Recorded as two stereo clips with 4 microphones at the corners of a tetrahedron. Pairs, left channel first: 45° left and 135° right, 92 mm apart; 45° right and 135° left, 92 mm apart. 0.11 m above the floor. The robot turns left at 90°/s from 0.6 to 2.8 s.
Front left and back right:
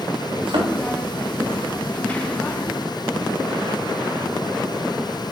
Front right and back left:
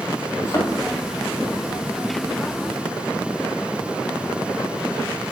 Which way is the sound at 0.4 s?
105° right.